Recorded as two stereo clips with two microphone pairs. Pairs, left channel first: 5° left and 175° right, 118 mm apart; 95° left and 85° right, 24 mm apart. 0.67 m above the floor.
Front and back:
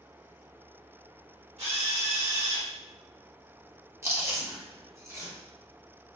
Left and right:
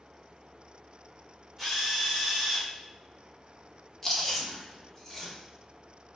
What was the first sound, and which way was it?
A drill, straight behind.